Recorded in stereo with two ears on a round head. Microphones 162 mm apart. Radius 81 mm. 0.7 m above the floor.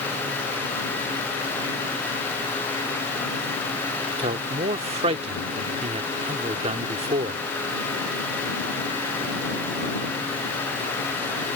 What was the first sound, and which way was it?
A man speaking, 35° right (ahead or behind).